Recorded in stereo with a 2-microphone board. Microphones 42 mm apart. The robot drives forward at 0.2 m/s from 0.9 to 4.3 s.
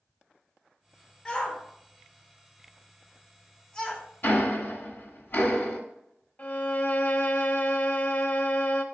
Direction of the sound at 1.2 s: 25° left (ahead or behind).